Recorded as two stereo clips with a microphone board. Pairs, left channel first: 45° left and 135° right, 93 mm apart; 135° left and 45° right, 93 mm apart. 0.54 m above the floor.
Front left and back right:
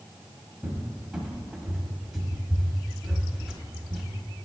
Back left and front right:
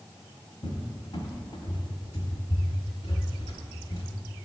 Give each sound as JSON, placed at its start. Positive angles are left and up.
{"t": 0.6, "sound": "a cupboard door", "azimuth_deg": 140, "distance_m": 1.1}